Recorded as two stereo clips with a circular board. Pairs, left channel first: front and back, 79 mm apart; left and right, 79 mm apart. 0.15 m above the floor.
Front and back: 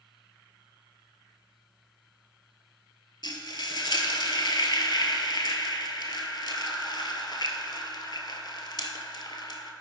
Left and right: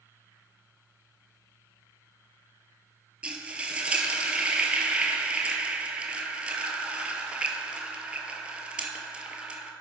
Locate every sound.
3.2 s frying: 15° right, 0.6 m